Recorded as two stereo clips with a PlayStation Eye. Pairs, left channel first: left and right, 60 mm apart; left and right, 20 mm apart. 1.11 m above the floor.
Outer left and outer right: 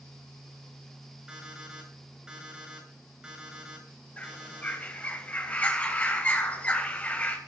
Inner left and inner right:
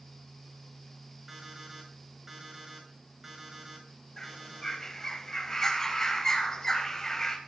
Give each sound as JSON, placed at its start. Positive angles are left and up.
{"t": 1.3, "sound": "an alarm clock", "side_deg": -15, "distance_m": 7.5}
{"t": 4.2, "sound": "a bird", "side_deg": 25, "distance_m": 3.0}